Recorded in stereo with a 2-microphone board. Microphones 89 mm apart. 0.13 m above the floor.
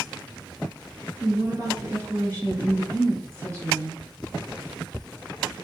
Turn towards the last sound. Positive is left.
turn(degrees=-35)  # may be behind; listen again after turning